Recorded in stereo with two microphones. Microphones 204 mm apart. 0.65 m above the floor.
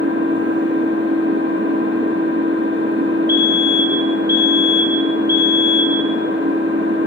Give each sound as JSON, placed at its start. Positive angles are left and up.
{"t": 0.0, "sound": "an engine running", "side_deg": -70, "distance_m": 8.5}
{"t": 3.3, "sound": "a fire alarm", "side_deg": -45, "distance_m": 8.0}